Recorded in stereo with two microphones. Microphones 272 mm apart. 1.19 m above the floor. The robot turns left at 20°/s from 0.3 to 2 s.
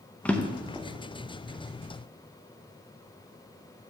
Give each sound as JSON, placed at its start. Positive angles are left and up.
{"t": 0.2, "sound": "a drawer", "side_deg": 5, "distance_m": 0.5}